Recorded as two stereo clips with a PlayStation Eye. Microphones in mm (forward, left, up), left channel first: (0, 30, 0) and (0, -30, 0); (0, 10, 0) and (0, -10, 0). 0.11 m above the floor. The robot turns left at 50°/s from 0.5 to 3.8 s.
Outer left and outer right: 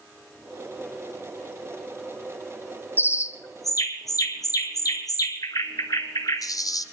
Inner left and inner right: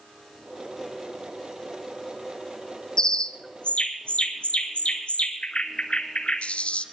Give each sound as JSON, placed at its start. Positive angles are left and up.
{"t": 3.0, "sound": "a bird", "side_deg": 35, "distance_m": 1.0}